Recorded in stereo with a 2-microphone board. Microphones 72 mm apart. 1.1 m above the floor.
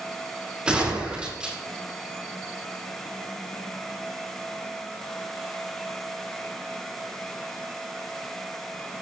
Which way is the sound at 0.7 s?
15° right (ahead or behind).